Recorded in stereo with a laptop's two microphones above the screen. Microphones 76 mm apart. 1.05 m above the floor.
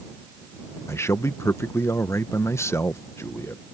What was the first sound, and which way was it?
A man speaking, 40° left (ahead or behind).